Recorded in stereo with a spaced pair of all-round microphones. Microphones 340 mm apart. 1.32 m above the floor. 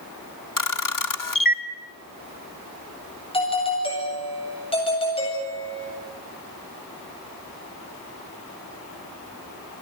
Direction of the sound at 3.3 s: 15° left (ahead or behind).